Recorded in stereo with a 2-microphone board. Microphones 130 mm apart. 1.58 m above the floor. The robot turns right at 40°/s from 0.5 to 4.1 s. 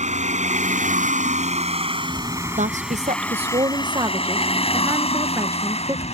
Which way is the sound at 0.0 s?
70° right (ahead or behind).